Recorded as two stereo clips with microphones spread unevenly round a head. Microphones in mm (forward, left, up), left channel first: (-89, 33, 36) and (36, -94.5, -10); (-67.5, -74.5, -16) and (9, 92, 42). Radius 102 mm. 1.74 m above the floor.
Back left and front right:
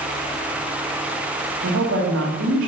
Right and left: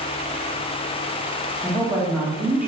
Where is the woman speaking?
10° right, 1.9 m.